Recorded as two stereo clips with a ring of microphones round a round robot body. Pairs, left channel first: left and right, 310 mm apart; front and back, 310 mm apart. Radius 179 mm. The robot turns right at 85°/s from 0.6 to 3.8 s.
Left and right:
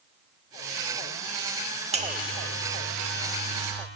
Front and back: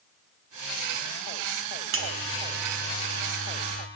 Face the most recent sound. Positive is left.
turn(degrees=5)